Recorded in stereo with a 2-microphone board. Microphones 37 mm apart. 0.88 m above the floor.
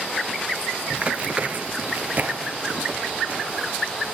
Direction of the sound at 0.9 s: 35° right (ahead or behind).